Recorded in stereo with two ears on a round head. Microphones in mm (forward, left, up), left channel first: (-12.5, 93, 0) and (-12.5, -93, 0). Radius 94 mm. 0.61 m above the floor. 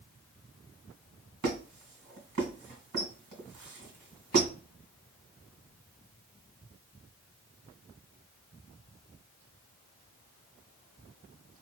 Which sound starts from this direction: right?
A squeak, at 1.4 s.